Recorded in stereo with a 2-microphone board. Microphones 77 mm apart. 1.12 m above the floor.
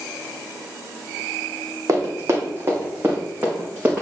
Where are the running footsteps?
40° right (ahead or behind), 3 m; by 4.0 s 20° right (ahead or behind), 4.5 m.